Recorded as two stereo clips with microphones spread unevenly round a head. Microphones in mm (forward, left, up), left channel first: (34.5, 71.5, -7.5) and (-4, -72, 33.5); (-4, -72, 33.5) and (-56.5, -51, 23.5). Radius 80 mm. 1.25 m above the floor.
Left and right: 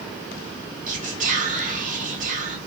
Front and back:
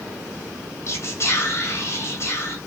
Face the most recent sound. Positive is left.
turn(degrees=-65)